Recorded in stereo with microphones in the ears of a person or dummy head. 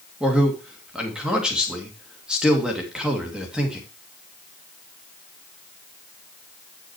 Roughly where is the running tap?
No running tap in this recording.